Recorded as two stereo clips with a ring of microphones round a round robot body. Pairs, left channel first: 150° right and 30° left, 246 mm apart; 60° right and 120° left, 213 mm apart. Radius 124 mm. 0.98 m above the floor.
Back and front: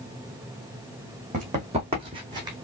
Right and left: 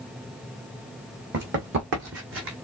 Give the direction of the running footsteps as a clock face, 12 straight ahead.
9 o'clock.